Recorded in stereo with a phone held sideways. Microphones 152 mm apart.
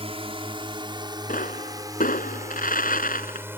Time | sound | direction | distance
0.0 | a drone | 40° right (ahead or behind) | ?
1.3 | a pop | 65° left (ahead or behind) | ?